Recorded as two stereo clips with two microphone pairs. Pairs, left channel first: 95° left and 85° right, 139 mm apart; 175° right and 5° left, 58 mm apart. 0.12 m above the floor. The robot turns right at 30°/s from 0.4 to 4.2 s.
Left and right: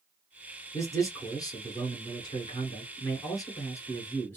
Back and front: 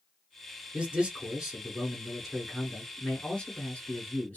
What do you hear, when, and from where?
0.7 s a man speaking: 50° left, 1.6 m; by 4.4 s 155° left, 1.6 m